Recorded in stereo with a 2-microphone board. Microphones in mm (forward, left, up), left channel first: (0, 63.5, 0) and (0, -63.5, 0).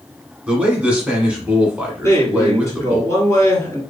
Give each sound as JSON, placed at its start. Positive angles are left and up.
{"t": 0.5, "sound": "a man speaking", "side_deg": -10, "distance_m": 1.1}
{"t": 2.0, "sound": "a man speaking", "side_deg": 25, "distance_m": 1.7}